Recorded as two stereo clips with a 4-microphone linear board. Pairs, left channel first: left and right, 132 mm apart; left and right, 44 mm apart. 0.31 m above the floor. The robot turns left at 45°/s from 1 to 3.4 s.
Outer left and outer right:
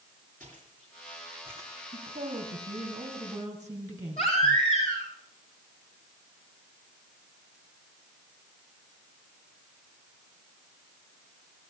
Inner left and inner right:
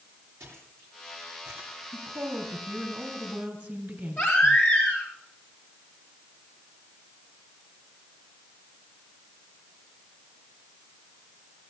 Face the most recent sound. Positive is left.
turn(degrees=55)  # may be behind; listen again after turning